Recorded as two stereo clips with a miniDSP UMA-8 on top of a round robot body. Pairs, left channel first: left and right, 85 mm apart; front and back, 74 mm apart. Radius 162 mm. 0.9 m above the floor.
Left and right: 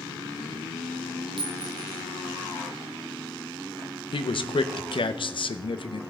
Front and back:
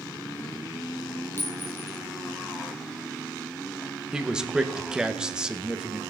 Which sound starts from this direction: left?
A man speaking, at 4.1 s.